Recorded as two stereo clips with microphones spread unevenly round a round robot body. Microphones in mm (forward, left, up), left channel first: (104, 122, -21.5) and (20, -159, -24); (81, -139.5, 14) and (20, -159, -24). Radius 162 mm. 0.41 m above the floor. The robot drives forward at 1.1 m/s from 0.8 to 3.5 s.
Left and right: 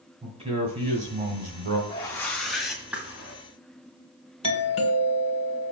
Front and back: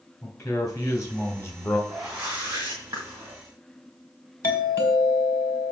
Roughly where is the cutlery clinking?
No cutlery clinking in this recording.